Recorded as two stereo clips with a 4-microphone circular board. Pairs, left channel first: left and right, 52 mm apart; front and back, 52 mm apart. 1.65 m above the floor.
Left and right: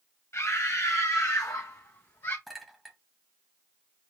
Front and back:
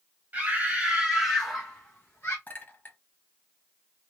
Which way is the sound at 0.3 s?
125° left.